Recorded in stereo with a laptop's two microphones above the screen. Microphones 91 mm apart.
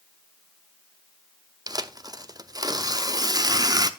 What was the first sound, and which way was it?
Tearing paper, 45° right (ahead or behind).